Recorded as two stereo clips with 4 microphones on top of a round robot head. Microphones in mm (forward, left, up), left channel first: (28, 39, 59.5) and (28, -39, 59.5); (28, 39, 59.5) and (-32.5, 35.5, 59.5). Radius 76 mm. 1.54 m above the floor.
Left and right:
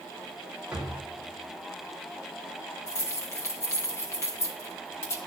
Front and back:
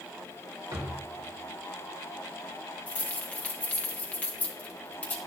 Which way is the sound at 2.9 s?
50° left.